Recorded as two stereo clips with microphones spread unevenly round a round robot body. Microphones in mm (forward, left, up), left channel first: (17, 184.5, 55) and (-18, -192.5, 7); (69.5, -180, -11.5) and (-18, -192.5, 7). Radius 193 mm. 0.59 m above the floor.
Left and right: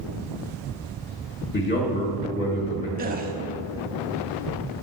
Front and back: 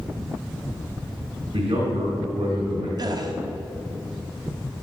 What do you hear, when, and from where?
1.5 s a man speaking: 150° left, 1.8 m
3.0 s a gasp: 140° right, 1.1 m